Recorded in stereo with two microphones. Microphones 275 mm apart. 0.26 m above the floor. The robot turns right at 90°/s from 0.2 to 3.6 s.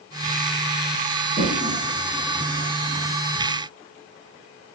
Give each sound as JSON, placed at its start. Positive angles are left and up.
{"t": 1.4, "sound": "a toilet flushing", "side_deg": -45, "distance_m": 1.1}